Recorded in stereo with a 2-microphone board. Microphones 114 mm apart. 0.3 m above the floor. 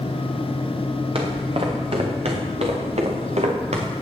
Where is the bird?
No bird in this recording.